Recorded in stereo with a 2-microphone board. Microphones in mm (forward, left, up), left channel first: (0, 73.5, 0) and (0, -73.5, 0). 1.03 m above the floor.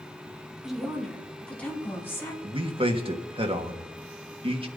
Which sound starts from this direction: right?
A man speaking, at 2.4 s.